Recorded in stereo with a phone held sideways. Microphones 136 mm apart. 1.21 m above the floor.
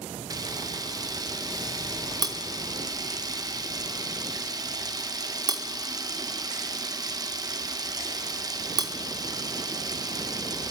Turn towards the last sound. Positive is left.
turn(degrees=-30)  # may be behind; listen again after turning